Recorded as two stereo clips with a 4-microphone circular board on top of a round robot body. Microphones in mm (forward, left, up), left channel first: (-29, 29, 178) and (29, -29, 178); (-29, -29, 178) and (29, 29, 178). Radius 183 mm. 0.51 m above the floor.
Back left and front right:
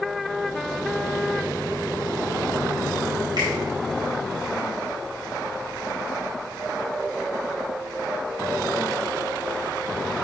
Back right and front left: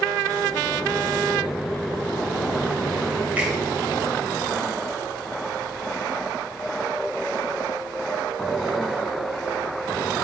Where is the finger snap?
25° right, 4 m.